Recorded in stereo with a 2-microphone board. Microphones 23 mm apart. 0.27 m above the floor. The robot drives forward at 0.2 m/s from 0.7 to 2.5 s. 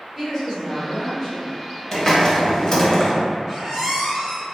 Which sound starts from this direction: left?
A hiss, at 1.9 s.